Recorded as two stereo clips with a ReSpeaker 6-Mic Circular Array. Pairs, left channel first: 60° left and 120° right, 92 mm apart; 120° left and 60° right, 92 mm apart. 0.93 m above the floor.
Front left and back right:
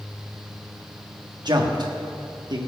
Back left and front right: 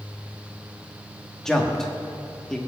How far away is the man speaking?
About 1.3 m.